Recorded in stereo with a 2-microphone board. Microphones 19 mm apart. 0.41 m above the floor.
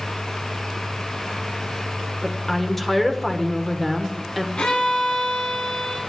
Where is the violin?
65° left (ahead or behind), 3 m.